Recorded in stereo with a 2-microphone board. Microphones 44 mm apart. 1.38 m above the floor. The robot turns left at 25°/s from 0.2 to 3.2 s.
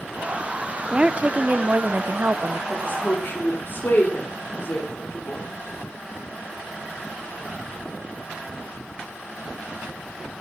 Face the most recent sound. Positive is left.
turn(degrees=50)  # may be behind; listen again after turning